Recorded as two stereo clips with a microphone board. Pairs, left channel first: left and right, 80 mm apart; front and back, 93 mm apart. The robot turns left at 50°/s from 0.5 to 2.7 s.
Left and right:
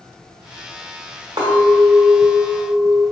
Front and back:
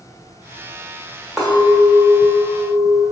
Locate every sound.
1.4 s a clink: 95° right, 1.5 m; by 3.0 s 160° right, 1.5 m